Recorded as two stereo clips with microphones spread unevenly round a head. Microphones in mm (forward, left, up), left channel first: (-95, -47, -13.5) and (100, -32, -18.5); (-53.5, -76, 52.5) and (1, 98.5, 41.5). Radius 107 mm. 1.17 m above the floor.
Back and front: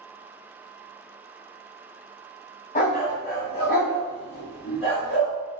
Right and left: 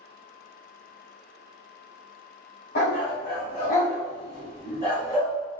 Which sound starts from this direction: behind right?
A dog barking, at 2.8 s.